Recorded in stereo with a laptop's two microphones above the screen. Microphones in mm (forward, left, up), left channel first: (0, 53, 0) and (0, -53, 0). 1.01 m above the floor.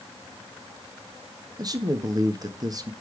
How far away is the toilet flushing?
No toilet flushing in this recording.